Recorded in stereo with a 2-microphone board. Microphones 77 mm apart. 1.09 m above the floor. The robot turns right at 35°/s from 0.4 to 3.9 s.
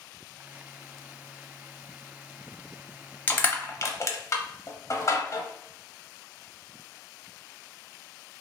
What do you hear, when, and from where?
3.3 s crushing: 25° left (ahead or behind), 0.6 m; by 5.4 s 40° left (ahead or behind), 0.6 m